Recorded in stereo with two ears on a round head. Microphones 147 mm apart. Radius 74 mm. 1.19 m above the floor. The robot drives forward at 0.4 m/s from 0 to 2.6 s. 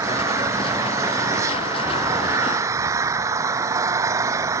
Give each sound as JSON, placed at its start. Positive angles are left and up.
{"t": 0.0, "sound": "an engine running", "side_deg": -15}